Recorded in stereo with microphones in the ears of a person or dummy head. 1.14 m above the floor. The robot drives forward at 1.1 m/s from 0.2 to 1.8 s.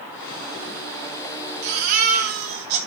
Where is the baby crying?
65° right (ahead or behind), 2.5 m; by 2.8 s 60° right (ahead or behind), 2.5 m.